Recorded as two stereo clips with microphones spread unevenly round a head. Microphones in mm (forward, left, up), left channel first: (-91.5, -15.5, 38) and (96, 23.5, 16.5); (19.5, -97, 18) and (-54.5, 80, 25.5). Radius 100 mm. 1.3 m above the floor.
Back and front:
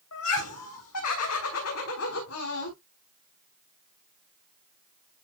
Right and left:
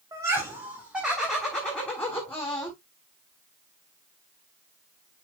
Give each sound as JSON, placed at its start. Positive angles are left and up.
{"t": 0.1, "sound": "laughter", "azimuth_deg": -175, "distance_m": 3.0}